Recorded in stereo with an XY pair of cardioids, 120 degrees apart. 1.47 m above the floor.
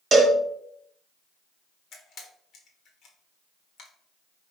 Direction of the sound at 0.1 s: 30° right.